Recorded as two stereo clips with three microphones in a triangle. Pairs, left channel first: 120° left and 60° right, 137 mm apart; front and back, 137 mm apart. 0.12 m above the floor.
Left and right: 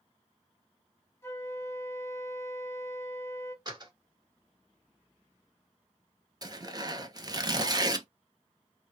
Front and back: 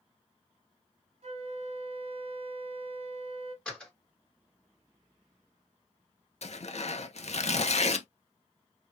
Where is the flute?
175° right, 1.6 m.